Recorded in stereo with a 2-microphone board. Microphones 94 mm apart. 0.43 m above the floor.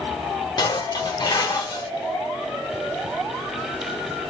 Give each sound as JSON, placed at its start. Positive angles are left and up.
{"t": 0.6, "sound": "dishes clattering", "side_deg": 45, "distance_m": 1.0}